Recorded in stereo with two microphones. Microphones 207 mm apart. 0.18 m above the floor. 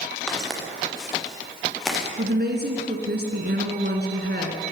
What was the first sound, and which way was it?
Footsteps, 5° left (ahead or behind).